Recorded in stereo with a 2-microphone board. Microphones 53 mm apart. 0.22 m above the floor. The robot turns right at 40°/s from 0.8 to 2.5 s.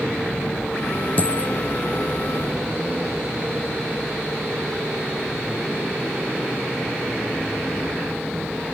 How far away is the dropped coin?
About 0.7 m.